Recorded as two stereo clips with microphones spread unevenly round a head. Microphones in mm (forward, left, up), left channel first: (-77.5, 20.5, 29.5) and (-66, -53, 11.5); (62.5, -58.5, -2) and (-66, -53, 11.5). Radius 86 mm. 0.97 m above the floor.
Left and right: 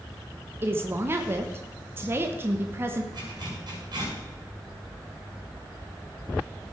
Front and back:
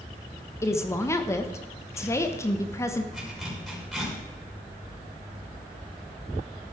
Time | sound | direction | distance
0.6 | a woman speaking | 55° right | 1.1 m
3.1 | a zipper | 95° right | 6 m